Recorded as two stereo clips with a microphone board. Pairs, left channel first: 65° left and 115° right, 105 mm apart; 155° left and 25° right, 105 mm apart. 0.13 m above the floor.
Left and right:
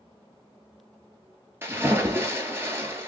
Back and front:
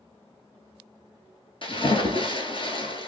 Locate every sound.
1.6 s a splash: 175° right, 1.2 m